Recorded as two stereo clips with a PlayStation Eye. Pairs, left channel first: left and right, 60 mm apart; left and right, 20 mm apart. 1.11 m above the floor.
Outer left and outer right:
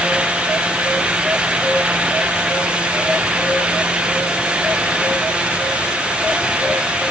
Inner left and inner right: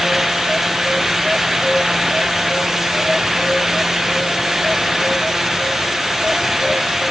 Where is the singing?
I don't hear singing.